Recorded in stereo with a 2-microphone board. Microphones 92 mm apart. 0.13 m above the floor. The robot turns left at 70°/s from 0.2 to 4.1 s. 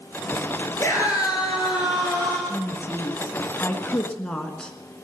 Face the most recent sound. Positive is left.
turn(degrees=20)